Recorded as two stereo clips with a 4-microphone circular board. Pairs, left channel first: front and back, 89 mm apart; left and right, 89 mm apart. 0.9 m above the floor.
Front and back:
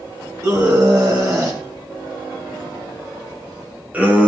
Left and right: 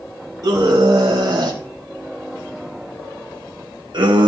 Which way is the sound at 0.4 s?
135° right.